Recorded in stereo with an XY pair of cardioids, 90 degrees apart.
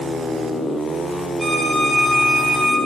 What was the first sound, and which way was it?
A violin, 10° right.